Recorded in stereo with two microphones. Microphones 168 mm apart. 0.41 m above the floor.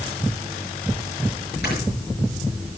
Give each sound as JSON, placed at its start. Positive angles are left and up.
{"t": 1.6, "sound": "snoring", "side_deg": 80, "distance_m": 6.0}